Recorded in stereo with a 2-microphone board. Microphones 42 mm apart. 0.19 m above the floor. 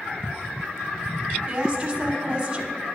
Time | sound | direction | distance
1.5 | a woman speaking | 25° right (ahead or behind) | 1.4 m